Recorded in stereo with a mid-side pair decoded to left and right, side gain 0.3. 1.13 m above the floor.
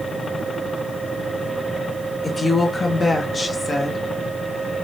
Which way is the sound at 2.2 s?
45° left.